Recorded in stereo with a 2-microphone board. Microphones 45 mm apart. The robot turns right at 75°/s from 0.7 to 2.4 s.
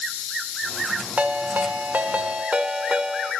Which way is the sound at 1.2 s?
130° right.